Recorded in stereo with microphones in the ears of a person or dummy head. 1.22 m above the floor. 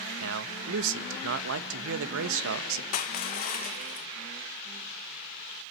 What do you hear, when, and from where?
0.2 s a man speaking: 65° right (ahead or behind), 1.0 m
2.9 s crushing: 45° left (ahead or behind), 0.7 m